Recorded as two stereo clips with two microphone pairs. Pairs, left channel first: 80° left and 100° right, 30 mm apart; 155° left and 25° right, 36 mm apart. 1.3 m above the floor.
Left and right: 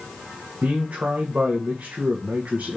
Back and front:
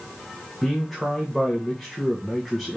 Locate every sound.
0.6 s a man speaking: 115° right, 1.7 m